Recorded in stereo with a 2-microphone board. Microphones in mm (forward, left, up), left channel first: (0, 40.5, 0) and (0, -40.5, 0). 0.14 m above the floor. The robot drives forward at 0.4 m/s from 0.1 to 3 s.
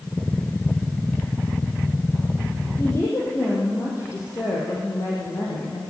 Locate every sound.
2.8 s a woman speaking: 35° left (ahead or behind), 5.5 m